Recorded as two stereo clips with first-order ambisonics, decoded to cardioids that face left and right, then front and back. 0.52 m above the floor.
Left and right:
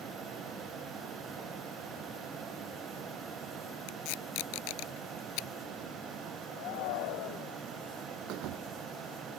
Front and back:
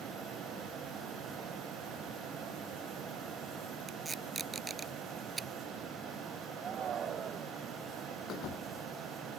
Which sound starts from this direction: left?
Tape being pulled, at 3.9 s.